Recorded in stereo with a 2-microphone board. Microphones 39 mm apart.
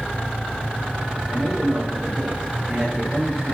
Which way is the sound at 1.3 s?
5° right (ahead or behind).